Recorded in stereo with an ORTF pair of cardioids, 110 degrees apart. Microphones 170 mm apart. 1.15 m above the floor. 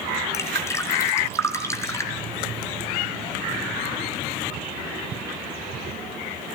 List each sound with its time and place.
0.3 s dripping: 15° left, 3.5 m